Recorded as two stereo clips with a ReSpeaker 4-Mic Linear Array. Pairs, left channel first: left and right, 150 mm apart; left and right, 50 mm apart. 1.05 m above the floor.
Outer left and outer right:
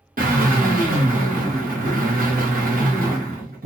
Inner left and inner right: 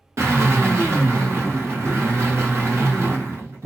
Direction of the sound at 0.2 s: 75° right (ahead or behind).